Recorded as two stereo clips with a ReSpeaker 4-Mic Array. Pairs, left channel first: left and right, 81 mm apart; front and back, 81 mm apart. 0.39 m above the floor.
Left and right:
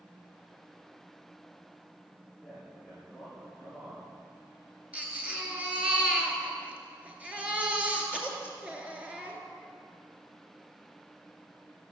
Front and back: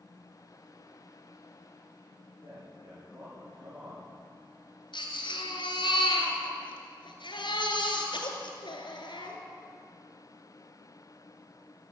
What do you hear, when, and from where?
2.4 s a man speaking: straight behind, 6.5 m
4.9 s a baby crying: 15° right, 2.5 m